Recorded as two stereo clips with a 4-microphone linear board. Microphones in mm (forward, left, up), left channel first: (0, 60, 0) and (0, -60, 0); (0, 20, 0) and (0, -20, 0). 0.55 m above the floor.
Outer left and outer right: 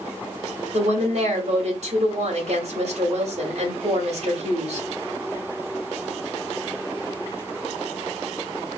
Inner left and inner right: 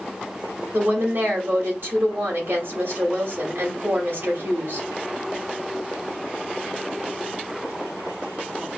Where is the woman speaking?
65° right (ahead or behind), 2 m.